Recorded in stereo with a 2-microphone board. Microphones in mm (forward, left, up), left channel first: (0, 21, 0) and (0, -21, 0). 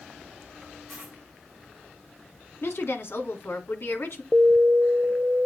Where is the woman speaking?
65° left (ahead or behind), 2.5 m.